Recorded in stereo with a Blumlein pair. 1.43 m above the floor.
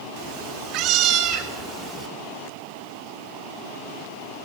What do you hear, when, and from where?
0.2 s a cat meowing: 45° right, 2 m; by 2.1 s 25° right, 3 m